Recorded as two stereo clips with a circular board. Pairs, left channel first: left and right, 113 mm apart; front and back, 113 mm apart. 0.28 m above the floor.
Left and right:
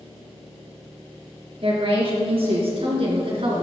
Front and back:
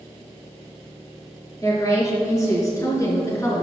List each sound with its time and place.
1.6 s a woman speaking: 60° right, 4 m; by 3.6 s 65° right, 2.5 m